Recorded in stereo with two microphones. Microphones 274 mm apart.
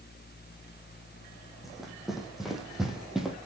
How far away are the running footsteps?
About 4 m.